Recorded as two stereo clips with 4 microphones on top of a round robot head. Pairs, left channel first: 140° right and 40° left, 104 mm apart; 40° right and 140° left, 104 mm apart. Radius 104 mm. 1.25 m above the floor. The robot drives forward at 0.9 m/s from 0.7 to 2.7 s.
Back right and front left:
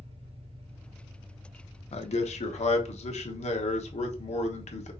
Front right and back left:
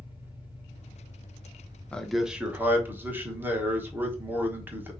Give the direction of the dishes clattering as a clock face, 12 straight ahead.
I don't hear dishes clattering.